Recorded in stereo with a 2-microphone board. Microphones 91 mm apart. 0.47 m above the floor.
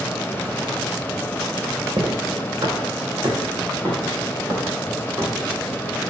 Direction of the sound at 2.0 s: 55° right (ahead or behind).